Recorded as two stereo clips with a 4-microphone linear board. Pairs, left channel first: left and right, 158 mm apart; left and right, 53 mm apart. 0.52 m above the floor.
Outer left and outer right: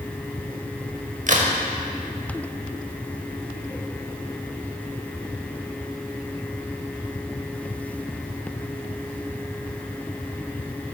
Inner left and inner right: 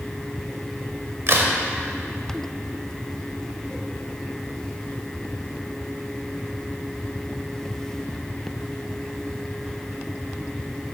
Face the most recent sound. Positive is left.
turn(degrees=-55)  # may be behind; listen again after turning